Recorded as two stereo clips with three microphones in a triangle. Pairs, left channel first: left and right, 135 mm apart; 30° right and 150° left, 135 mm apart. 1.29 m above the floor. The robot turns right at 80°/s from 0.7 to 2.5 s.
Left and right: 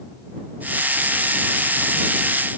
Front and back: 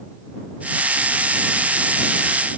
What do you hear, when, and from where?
Only background noise.